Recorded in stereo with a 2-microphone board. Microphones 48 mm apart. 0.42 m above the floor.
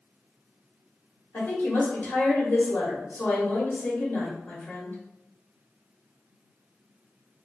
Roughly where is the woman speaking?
Left.